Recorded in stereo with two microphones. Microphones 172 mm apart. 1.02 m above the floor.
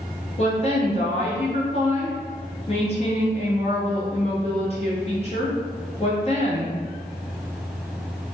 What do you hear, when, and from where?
0.4 s a woman speaking: 35° left (ahead or behind), 0.9 m